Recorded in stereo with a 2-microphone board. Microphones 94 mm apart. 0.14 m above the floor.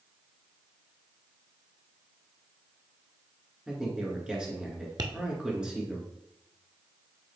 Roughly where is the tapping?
Right.